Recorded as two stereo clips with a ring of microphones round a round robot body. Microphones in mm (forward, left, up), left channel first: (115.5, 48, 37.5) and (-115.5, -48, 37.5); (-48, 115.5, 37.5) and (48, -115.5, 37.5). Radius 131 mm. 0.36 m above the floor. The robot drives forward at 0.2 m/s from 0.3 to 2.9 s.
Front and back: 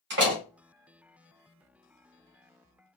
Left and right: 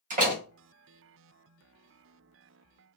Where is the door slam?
120° right, 1.8 m; by 0.4 s 125° right, 1.8 m.